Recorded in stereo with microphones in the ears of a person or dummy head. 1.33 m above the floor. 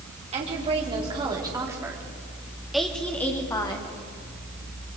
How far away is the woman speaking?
About 3 m.